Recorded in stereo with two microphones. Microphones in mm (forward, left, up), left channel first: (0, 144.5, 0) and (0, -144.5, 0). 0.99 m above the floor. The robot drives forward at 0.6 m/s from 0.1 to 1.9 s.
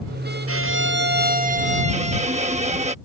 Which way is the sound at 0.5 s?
55° right (ahead or behind).